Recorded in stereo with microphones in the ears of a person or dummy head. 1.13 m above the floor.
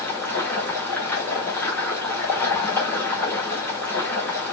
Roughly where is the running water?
Centre.